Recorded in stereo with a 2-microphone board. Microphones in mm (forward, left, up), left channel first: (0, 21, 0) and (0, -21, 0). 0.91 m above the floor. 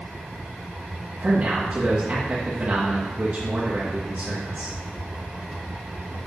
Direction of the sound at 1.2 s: 35° right (ahead or behind).